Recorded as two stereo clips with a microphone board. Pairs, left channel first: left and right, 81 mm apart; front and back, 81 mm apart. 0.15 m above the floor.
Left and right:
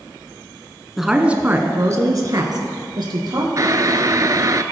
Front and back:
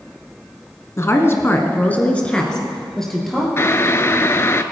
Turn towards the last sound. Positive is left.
turn(degrees=-55)